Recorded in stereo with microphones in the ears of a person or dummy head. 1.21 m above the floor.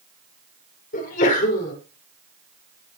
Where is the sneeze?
40° left (ahead or behind), 5 m.